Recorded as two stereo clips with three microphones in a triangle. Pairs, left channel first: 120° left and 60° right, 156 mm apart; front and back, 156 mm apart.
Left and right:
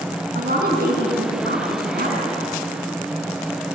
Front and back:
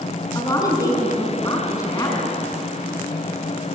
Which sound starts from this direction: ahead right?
A woman speaking, at 0.3 s.